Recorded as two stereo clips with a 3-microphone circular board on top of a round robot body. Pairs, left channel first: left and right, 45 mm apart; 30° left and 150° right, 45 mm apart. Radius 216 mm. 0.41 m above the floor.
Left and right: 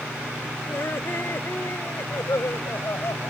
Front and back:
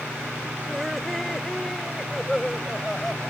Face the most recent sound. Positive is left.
turn(degrees=120)